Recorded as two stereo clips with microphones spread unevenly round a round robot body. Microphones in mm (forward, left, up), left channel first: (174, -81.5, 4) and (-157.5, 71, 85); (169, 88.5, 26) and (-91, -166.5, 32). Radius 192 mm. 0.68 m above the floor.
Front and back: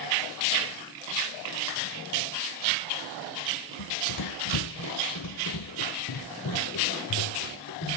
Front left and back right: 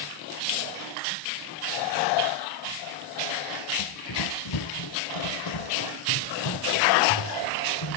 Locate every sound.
3.8 s running footsteps: 15° left, 1.0 m; by 8.0 s 30° left, 3.5 m